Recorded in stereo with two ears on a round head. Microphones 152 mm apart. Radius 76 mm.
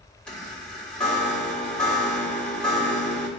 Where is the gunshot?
No gunshot in this recording.